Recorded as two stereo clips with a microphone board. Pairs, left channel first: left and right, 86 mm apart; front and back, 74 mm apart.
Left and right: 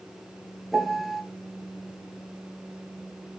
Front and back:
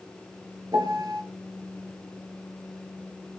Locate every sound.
0.7 s a piano: straight behind, 0.7 m